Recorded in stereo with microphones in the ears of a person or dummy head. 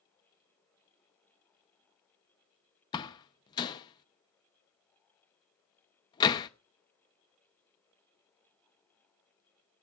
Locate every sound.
2.9 s a door slam: 15° left (ahead or behind), 0.6 m